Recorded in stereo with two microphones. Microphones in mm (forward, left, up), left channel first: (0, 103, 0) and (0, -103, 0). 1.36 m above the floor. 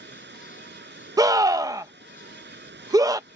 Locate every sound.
0.0 s running water: 60° right (ahead or behind)
1.2 s a scream: 15° right (ahead or behind)